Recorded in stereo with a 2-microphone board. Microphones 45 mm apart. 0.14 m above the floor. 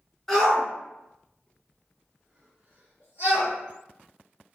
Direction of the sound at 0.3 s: 10° left (ahead or behind).